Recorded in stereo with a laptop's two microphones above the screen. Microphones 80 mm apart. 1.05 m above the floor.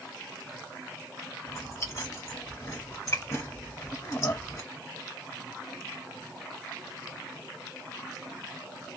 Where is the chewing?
40° left (ahead or behind), 1.6 m.